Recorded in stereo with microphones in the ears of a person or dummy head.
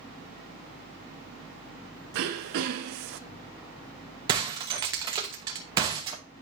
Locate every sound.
2.1 s throat clearing: 55° right (ahead or behind), 0.7 m
4.3 s breaking glass: 30° right (ahead or behind), 1.2 m